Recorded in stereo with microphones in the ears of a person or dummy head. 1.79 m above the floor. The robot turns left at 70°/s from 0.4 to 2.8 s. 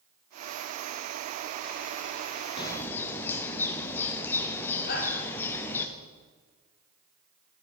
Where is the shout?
65° left (ahead or behind), 2.5 m.